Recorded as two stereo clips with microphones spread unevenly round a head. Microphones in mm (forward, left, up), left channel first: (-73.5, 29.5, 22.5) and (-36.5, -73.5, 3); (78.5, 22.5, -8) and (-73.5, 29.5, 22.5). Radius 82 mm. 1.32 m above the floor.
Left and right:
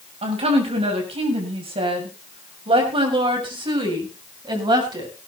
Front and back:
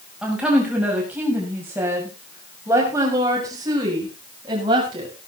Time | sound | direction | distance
0.2 | a woman speaking | 100° right | 7 m